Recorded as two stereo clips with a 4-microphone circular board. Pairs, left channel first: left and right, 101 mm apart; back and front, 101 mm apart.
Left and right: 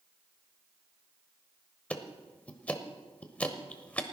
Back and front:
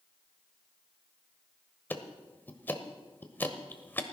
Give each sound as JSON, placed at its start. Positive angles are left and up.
{"t": 1.9, "sound": "ticking", "azimuth_deg": 145, "distance_m": 1.1}